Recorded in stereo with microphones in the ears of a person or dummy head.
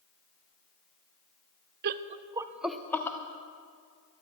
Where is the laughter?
50° right (ahead or behind), 0.6 m; by 3.2 s 15° left (ahead or behind), 1.0 m.